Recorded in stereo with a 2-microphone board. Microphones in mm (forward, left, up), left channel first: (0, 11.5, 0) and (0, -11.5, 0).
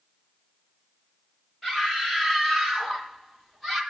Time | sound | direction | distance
1.6 | a scream | 5° left (ahead or behind) | 9.5 m